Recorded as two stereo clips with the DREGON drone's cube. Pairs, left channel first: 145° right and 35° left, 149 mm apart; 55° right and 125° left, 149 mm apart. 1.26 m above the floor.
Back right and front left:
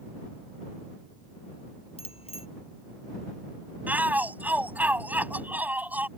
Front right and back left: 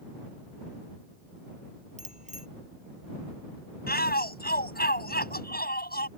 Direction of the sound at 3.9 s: 45° right.